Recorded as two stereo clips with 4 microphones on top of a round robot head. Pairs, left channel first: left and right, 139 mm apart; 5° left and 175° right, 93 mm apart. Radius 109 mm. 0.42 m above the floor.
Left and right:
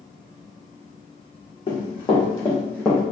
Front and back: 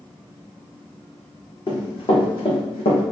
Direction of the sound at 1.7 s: 40° left.